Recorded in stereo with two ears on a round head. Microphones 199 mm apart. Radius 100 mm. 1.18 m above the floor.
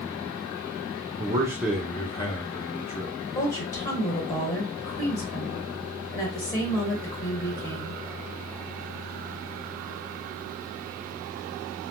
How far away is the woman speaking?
About 1.6 m.